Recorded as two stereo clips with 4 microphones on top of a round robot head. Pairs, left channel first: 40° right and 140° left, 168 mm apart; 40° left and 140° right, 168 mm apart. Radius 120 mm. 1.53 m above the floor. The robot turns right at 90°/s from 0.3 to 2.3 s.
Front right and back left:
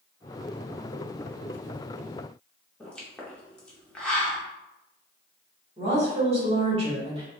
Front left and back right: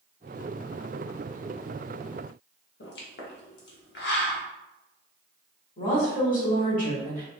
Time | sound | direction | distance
2.8 | a pop | 45° left | 0.9 m
5.8 | a woman speaking | 85° left | 1.7 m